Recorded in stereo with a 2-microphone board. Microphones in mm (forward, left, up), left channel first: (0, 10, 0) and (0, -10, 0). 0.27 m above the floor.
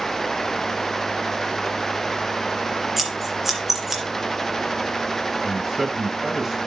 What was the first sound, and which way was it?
Scissors, 15° right (ahead or behind).